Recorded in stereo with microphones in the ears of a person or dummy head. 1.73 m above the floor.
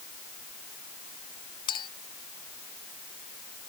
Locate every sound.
1.7 s a clink: 25° left (ahead or behind)